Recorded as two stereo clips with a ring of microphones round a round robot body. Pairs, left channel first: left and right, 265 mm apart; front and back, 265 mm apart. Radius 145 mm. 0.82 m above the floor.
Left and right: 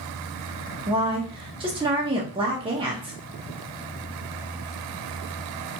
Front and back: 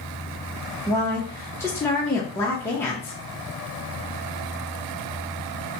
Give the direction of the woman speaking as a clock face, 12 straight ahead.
2 o'clock.